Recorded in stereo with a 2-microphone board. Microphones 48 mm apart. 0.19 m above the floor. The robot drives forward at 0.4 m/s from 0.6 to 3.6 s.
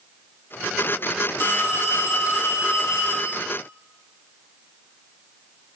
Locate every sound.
1.4 s a phone ringing: 65° left (ahead or behind), 4.5 m; by 3.4 s 70° left (ahead or behind), 4 m